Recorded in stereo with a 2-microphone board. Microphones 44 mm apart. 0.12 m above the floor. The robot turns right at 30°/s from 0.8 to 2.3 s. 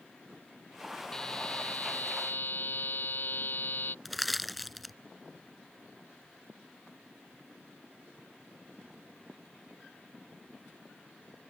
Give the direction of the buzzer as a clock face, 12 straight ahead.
11 o'clock.